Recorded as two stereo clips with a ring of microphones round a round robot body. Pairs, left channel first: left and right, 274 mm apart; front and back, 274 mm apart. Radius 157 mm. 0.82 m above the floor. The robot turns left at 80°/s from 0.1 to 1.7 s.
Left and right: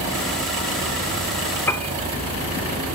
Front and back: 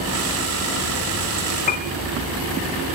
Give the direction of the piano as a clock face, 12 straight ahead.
11 o'clock.